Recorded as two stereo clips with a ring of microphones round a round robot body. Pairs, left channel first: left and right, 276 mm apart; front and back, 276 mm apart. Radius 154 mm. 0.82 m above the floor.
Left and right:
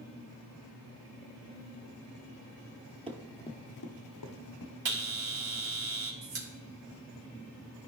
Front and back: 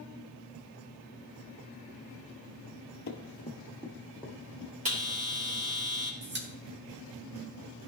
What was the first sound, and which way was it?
Running footsteps, 30° right.